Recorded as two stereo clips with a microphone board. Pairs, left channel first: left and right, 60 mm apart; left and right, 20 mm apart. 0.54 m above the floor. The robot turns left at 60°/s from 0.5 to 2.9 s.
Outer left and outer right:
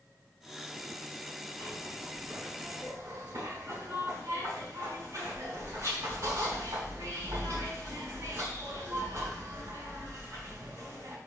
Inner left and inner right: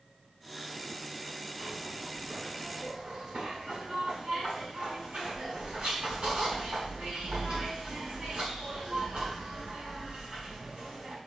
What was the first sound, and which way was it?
A zipper, 30° left.